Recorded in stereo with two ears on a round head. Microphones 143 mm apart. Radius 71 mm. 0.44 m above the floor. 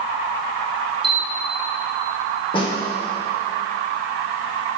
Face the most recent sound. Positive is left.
turn(degrees=30)  # may be behind; listen again after turning